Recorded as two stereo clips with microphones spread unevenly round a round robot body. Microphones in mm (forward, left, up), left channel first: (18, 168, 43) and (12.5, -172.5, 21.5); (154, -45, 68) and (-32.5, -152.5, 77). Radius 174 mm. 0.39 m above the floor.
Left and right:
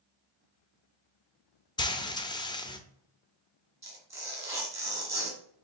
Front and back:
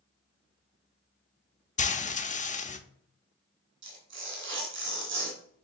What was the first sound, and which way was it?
Frying, 15° left.